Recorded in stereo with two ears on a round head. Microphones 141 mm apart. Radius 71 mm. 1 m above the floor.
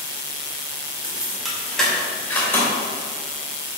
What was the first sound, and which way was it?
Keys jangling, 10° right (ahead or behind).